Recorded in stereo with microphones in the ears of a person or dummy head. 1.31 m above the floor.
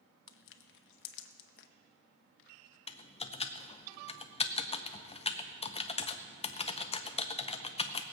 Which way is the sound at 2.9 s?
25° left (ahead or behind).